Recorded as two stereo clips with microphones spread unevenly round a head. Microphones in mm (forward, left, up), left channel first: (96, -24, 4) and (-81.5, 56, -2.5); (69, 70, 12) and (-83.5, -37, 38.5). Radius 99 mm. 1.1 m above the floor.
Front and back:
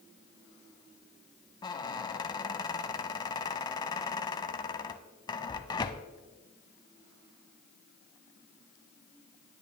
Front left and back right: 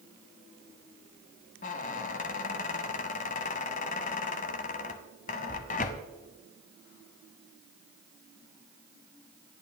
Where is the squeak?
15° left, 1.0 m.